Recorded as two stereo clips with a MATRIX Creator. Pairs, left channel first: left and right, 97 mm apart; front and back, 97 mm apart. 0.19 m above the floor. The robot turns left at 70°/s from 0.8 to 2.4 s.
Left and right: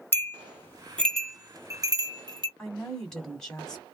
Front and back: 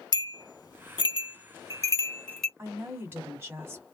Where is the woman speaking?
165° left, 1.5 m.